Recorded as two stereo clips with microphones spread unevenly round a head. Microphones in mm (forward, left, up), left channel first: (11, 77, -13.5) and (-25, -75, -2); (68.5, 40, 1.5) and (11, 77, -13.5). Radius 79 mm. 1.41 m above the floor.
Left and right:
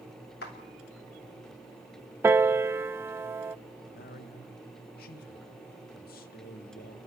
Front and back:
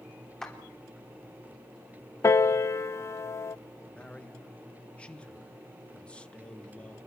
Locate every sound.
0.4 s a clap: 45° left, 3.5 m
2.2 s a piano: 35° right, 0.6 m
3.9 s a man speaking: 40° left, 1.8 m